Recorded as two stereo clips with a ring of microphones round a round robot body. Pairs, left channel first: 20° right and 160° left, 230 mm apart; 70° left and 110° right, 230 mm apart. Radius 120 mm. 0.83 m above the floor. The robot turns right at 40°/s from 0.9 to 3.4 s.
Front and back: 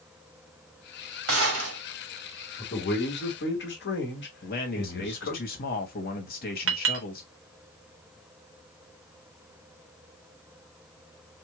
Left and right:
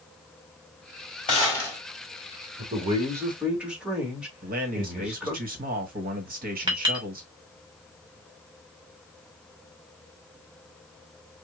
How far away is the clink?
About 1.1 m.